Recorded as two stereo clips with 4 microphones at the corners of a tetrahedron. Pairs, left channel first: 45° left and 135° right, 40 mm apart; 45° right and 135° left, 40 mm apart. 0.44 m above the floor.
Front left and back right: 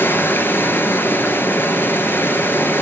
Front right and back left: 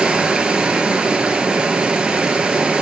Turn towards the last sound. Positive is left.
turn(degrees=65)